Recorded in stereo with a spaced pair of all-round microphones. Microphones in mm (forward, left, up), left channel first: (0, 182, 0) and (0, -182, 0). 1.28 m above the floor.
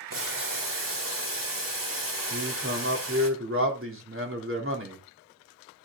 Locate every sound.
0.1 s boiling: 60° right (ahead or behind), 2.5 m
2.3 s a man speaking: 35° right (ahead or behind), 3.5 m